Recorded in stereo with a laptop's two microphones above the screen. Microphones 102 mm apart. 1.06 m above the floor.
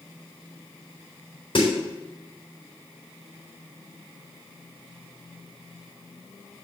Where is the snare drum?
50° left (ahead or behind), 3.5 m.